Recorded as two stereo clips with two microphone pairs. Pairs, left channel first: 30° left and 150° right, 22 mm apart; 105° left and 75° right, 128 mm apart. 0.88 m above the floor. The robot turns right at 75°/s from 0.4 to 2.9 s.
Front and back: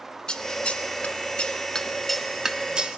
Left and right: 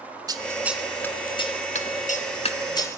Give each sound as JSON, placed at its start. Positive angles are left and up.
{"t": 0.3, "sound": "scissors", "azimuth_deg": -15, "distance_m": 1.4}